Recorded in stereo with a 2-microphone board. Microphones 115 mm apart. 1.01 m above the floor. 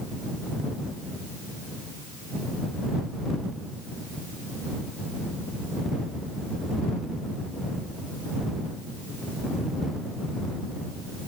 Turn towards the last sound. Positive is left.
No sound to turn to.